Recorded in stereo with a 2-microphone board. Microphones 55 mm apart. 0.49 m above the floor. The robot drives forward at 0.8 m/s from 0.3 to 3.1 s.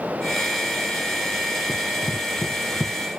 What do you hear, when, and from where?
1.7 s running footsteps: 10° right (ahead or behind); by 2.9 s 30° left (ahead or behind)